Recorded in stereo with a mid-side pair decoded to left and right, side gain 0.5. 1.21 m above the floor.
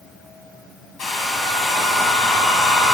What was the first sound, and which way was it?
A hair dryer, 60° left.